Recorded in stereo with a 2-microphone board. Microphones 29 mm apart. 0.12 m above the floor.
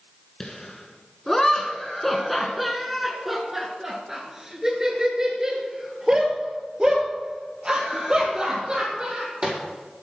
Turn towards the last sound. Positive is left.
turn(degrees=-35)  # may be behind; listen again after turning